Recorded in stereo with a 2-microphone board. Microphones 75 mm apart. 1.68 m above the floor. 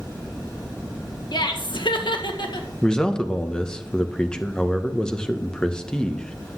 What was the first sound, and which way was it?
Laughter, 70° left (ahead or behind).